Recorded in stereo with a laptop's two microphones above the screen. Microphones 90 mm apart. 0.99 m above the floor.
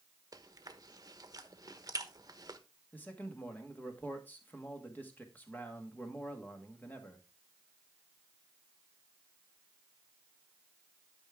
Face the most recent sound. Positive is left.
turn(degrees=20)  # may be behind; listen again after turning